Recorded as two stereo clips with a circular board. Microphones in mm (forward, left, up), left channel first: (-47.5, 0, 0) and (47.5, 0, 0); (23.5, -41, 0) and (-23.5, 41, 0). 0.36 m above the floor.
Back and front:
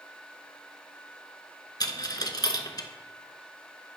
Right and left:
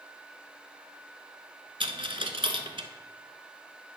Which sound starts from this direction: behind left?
A dropped coin, at 1.8 s.